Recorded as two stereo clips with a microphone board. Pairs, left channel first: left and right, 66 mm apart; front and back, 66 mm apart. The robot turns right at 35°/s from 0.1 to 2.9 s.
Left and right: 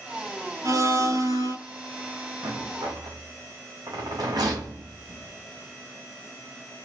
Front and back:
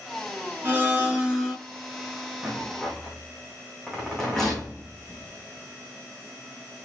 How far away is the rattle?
About 3.5 m.